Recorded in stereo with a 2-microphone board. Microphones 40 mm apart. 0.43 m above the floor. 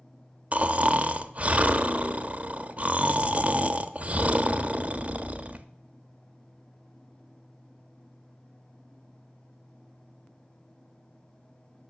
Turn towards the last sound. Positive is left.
turn(degrees=-35)  # may be behind; listen again after turning